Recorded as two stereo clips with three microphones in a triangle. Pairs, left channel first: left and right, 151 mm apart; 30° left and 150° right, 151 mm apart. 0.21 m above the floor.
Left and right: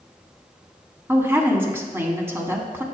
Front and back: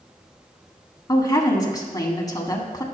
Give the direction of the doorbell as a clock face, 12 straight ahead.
I don't hear a doorbell.